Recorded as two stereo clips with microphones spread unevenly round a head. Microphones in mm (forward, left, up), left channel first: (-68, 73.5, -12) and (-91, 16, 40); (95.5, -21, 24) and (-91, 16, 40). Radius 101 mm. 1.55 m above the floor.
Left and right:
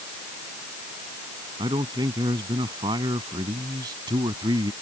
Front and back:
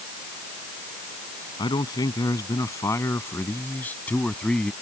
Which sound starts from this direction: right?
A man speaking, at 1.6 s.